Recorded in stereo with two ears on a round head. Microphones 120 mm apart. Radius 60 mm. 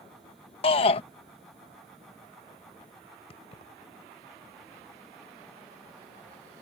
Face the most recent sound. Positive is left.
turn(degrees=45)  # may be behind; listen again after turning